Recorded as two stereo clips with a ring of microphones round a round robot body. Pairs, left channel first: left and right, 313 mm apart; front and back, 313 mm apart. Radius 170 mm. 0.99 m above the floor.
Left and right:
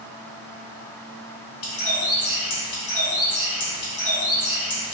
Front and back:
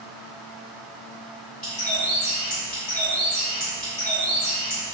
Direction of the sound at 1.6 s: 65° left.